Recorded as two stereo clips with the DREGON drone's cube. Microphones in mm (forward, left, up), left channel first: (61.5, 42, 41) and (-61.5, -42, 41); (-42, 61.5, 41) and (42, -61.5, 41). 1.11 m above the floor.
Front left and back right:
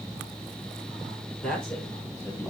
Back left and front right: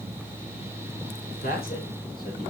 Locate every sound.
1.4 s a man speaking: 120° left, 4.5 m; by 2.5 s 105° left, 4 m